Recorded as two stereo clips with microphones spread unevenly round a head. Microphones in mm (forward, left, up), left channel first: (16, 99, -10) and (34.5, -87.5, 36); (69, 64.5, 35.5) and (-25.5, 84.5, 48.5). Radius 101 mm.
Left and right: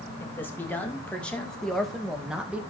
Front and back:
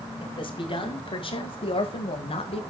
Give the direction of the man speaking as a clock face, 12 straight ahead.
11 o'clock.